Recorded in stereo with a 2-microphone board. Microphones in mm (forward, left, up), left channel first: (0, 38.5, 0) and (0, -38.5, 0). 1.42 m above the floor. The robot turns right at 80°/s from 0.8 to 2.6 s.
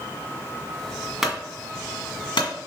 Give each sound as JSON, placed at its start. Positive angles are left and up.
{"t": 1.2, "sound": "a clunk", "side_deg": -5, "distance_m": 1.9}